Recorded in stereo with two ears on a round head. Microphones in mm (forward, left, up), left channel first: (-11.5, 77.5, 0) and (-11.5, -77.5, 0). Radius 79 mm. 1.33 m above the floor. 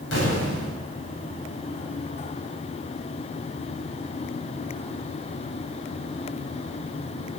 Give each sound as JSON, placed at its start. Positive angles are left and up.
{"t": 0.1, "sound": "an explosion", "side_deg": 85, "distance_m": 8.5}